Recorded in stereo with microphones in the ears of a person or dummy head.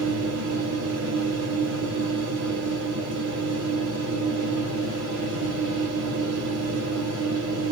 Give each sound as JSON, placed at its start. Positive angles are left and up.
{"t": 0.0, "sound": "a machine running", "side_deg": -70, "distance_m": 1.5}